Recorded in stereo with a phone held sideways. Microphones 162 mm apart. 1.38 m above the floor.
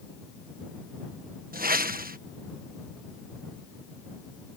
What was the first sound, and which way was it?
A whoosh, 65° right (ahead or behind).